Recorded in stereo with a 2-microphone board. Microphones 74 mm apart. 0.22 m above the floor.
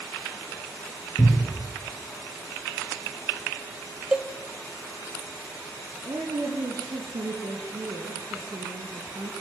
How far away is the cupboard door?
About 6 m.